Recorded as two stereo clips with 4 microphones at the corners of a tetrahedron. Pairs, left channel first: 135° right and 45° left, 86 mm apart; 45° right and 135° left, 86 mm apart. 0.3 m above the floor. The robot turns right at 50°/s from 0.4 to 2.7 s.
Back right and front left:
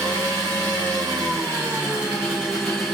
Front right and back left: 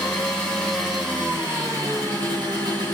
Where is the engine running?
25° left, 2.0 m; by 3.0 s 140° left, 2.0 m.